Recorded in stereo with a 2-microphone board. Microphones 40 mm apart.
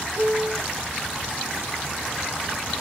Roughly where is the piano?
Right.